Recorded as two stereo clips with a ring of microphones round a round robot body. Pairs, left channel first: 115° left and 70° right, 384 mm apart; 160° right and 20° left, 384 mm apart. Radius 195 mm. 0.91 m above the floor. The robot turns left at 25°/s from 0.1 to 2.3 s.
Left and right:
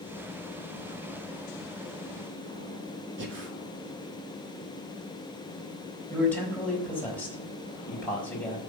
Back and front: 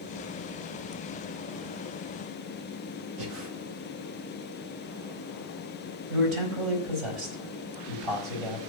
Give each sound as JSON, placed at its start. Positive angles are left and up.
{"t": 3.2, "sound": "breathing", "azimuth_deg": -10, "distance_m": 1.7}
{"t": 6.1, "sound": "a man speaking", "azimuth_deg": 25, "distance_m": 4.0}